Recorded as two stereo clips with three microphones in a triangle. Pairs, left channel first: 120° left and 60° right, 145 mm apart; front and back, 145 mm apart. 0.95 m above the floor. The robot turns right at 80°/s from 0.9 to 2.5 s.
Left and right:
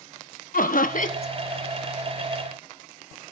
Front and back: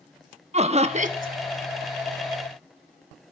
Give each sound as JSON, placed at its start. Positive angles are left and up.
{"t": 0.5, "sound": "laughter", "azimuth_deg": 135, "distance_m": 1.2}